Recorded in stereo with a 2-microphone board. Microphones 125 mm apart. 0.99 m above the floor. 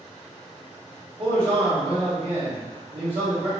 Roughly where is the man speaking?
Right.